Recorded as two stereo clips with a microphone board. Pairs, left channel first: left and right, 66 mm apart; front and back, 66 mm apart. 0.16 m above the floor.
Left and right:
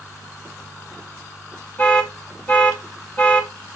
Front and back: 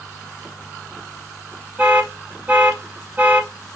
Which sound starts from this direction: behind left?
An alarm, at 1.8 s.